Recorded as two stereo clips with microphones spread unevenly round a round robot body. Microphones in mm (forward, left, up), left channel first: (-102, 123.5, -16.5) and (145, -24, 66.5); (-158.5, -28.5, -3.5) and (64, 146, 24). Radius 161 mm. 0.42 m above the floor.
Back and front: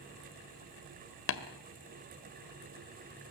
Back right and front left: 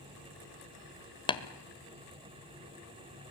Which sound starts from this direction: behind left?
Tapping, at 1.3 s.